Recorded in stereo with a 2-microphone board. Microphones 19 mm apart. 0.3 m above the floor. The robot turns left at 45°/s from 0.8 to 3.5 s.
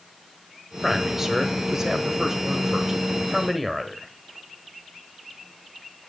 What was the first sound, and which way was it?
A man speaking, 20° right (ahead or behind).